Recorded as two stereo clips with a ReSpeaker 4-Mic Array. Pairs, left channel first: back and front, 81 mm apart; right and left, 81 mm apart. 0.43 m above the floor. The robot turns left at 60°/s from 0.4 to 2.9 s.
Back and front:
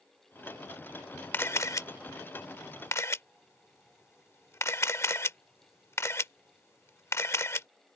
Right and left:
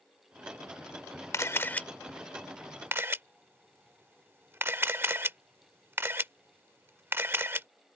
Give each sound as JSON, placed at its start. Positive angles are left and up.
{"t": 1.3, "sound": "a camera shutter", "azimuth_deg": -125}